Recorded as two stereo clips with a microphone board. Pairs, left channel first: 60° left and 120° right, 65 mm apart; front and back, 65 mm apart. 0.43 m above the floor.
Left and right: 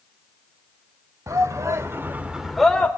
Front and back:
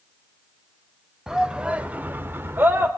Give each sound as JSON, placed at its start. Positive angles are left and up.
{"t": 1.3, "sound": "a shout", "azimuth_deg": -100, "distance_m": 1.5}